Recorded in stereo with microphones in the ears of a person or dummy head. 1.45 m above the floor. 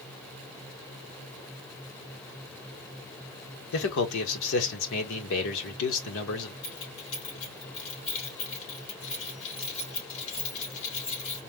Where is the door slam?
No door slam in this recording.